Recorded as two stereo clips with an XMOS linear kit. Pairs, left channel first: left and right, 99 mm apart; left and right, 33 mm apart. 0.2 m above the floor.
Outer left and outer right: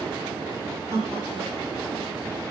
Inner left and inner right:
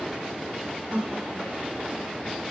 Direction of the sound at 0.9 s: 30° right (ahead or behind).